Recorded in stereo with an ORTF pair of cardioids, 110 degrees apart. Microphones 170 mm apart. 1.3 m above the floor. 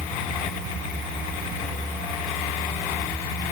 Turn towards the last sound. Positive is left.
No sound to turn to.